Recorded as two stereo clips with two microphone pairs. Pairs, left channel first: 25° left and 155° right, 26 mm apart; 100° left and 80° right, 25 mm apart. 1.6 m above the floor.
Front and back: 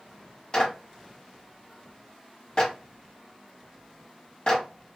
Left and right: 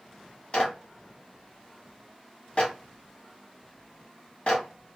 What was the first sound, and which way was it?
A clap, 75° left.